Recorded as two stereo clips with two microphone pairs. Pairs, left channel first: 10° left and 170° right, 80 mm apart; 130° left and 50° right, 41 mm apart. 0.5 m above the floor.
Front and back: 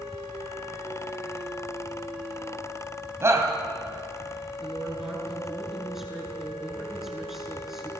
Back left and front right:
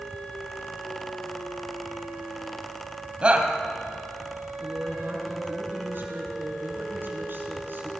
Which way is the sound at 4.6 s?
85° right.